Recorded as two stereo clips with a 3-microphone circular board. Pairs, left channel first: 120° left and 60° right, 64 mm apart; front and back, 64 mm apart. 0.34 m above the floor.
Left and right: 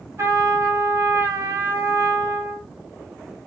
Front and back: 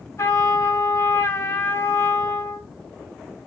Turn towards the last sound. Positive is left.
turn(degrees=-25)